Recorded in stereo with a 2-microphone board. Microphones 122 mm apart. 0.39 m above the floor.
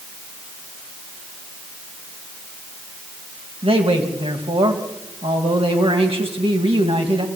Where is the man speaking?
50° right (ahead or behind), 3 m.